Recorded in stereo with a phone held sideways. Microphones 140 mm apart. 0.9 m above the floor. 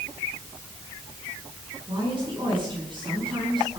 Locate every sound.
1.9 s a woman speaking: 35° right (ahead or behind), 8.5 m